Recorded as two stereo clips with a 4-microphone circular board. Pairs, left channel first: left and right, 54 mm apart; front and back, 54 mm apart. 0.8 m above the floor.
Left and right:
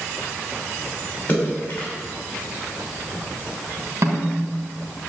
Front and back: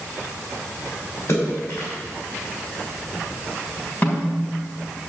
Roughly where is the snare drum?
Ahead right.